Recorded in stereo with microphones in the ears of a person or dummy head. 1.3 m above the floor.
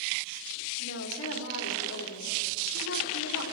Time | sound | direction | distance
0.8 | a woman speaking | 75° left (ahead or behind) | 3 m